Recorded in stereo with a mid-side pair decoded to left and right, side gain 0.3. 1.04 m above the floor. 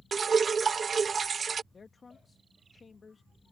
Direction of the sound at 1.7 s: 50° left.